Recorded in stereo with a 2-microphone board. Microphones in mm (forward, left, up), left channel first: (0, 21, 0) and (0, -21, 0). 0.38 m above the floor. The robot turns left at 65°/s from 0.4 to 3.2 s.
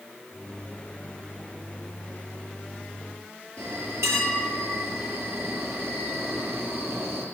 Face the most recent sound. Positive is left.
turn(degrees=-85)